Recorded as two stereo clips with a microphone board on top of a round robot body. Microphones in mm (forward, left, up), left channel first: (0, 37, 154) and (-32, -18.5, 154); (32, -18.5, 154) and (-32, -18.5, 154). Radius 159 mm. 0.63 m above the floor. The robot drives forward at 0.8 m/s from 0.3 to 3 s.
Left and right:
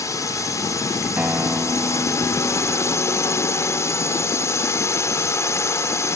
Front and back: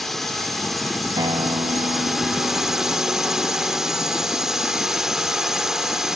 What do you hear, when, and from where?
0.0 s a drone: 85° left; by 6.2 s 100° left
1.2 s a guitar: 170° left